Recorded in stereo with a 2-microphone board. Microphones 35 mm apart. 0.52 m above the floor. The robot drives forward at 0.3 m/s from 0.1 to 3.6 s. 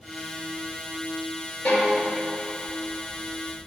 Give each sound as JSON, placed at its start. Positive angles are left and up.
{"t": 1.6, "sound": "a violin", "side_deg": 65, "distance_m": 2.0}